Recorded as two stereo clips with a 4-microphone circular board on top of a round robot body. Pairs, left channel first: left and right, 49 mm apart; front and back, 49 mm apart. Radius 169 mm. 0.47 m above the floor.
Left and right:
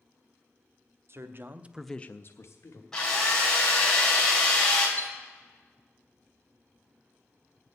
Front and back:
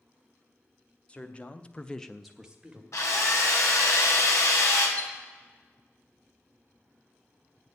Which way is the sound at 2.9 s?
10° left.